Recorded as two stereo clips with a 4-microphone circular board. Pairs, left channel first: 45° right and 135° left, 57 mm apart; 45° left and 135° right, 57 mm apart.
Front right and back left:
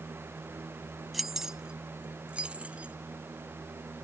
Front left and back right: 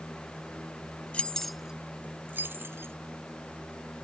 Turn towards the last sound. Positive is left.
turn(degrees=-165)